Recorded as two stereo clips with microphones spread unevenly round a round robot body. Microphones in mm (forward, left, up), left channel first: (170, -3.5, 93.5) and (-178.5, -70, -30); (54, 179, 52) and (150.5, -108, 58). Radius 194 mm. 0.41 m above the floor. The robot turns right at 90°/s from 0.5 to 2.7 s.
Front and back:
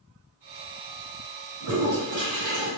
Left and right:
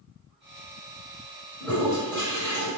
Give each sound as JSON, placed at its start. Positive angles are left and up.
{"t": 1.6, "sound": "a toilet flushing", "azimuth_deg": -175, "distance_m": 1.8}